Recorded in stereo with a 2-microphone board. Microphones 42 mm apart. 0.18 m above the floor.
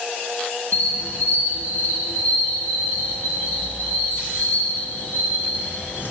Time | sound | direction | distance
0.7 | a squeak | 45° left (ahead or behind) | 1.6 m